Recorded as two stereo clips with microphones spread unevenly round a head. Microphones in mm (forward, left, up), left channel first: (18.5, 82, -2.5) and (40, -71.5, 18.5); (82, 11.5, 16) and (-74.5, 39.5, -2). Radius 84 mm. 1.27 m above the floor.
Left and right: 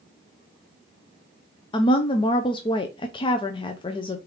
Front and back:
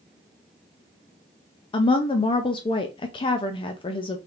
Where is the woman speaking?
50° left, 0.5 m.